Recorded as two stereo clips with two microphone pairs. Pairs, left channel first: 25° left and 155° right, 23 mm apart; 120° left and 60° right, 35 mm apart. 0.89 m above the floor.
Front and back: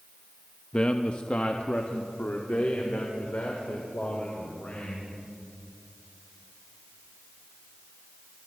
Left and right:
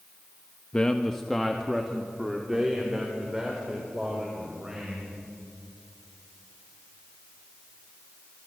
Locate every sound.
0.7 s a man speaking: 65° left, 0.9 m; by 5.0 s 15° left, 5 m